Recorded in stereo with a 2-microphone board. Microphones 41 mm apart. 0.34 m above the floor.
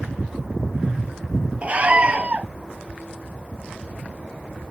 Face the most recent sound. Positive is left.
turn(degrees=-30)  # may be behind; listen again after turning